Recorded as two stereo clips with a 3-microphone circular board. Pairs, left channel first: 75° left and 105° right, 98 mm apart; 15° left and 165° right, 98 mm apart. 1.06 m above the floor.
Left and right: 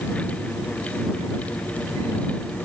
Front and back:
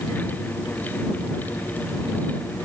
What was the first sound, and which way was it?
Only background noise.